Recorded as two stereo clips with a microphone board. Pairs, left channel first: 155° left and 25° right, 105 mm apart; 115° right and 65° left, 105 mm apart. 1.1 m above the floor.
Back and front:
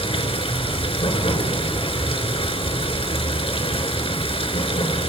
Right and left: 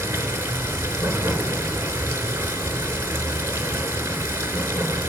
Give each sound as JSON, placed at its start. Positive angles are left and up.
{"t": 0.0, "sound": "running water", "azimuth_deg": 140, "distance_m": 4.0}